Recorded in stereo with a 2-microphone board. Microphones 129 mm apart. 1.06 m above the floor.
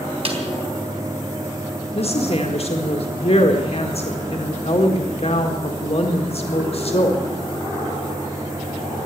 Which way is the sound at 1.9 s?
50° left (ahead or behind).